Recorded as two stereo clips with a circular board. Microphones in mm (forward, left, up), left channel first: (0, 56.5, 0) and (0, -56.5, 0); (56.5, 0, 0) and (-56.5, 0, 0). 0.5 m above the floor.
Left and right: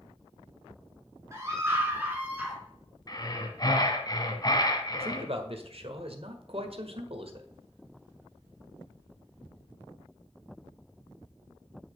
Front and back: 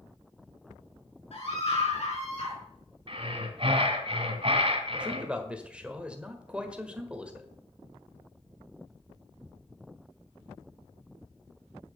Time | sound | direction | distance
1.3 | a scream | 25° right | 5 m
3.1 | breathing | 145° left | 1.5 m
4.9 | a man speaking | 100° right | 1.6 m